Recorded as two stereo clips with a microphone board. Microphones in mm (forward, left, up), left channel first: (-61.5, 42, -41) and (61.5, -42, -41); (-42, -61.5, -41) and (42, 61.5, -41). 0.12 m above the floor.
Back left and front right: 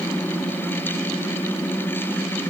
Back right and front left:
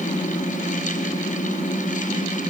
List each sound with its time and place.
Only background noise.